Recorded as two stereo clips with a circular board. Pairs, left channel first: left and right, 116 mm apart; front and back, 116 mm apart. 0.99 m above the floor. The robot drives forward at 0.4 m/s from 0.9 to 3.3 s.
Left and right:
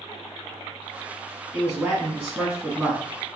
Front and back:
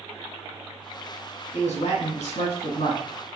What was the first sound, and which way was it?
A man speaking, 15° right.